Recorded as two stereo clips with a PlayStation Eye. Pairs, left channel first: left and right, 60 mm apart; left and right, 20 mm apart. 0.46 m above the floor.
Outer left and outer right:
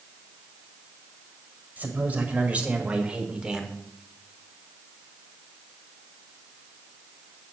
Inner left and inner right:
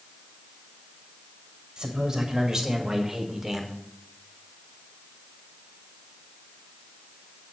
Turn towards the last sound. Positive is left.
turn(degrees=-10)  # may be behind; listen again after turning